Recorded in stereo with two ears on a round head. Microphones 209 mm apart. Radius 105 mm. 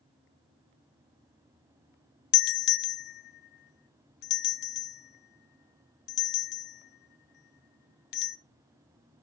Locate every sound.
2.3 s a doorbell: 45° left (ahead or behind), 0.6 m